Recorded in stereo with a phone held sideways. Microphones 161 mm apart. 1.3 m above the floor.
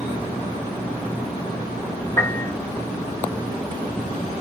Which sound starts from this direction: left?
A piano, at 2.2 s.